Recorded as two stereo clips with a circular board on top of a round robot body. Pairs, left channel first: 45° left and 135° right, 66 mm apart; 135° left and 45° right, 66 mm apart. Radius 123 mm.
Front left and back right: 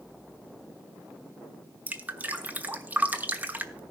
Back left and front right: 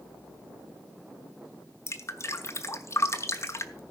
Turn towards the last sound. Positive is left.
turn(degrees=165)